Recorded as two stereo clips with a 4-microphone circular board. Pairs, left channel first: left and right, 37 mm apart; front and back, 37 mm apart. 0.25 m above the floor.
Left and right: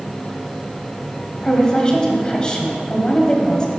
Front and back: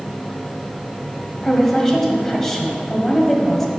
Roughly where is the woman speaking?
Left.